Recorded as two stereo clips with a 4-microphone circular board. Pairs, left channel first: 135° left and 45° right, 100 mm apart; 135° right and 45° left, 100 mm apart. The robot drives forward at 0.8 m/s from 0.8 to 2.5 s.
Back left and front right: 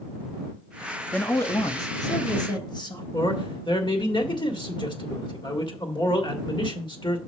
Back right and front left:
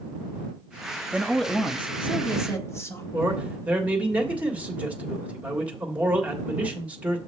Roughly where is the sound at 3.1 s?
Behind left.